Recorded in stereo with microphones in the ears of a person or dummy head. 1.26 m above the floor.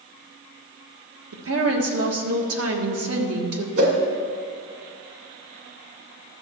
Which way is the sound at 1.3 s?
70° right (ahead or behind).